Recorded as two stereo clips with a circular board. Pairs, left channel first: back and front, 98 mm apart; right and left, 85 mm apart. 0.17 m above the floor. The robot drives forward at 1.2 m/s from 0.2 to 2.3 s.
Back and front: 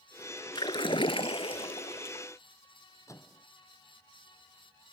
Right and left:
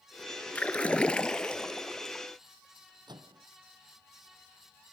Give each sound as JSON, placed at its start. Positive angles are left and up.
{"t": 0.6, "sound": "a splash", "azimuth_deg": -160}
{"t": 3.1, "sound": "a microwave", "azimuth_deg": 125}